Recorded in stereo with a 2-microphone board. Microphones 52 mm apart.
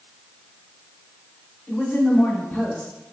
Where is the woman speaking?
30° left (ahead or behind), 1.0 m.